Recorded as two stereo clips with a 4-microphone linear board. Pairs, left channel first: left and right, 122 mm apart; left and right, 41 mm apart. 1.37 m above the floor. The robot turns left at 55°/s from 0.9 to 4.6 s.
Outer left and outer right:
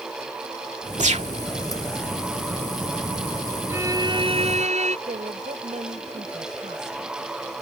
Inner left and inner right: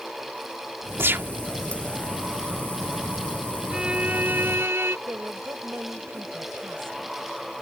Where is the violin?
15° right; by 5.0 s 65° right.